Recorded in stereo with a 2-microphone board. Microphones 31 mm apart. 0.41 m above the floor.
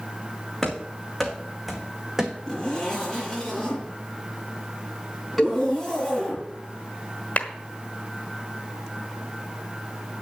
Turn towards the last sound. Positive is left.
turn(degrees=45)  # may be behind; listen again after turning